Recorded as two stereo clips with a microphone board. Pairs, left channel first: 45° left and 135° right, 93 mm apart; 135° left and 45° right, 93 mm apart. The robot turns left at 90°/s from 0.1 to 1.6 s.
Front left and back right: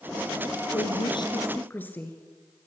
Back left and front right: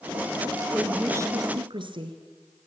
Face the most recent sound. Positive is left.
turn(degrees=-25)